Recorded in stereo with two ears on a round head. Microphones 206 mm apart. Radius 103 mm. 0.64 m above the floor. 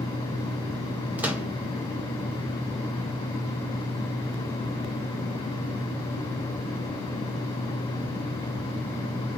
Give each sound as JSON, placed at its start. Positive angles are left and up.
{"t": 1.2, "sound": "a microwave", "side_deg": -5, "distance_m": 0.5}